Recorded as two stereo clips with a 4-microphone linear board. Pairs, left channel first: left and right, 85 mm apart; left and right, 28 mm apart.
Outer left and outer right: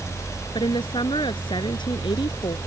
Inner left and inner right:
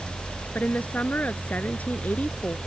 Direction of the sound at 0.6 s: 70° left (ahead or behind).